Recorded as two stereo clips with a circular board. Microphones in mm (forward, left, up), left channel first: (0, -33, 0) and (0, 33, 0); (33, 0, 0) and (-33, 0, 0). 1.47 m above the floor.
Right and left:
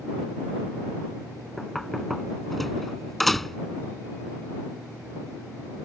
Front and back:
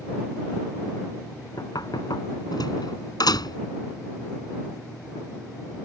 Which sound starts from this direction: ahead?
Knocking, at 1.6 s.